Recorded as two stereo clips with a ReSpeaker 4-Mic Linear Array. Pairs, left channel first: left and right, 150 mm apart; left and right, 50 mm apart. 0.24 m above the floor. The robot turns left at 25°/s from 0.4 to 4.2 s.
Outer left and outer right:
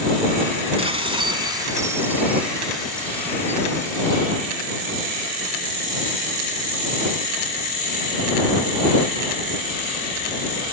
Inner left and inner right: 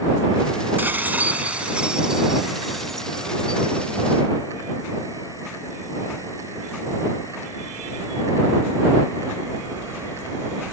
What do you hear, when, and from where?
0.8 s dishes clattering: 130° right; by 4.2 s 145° left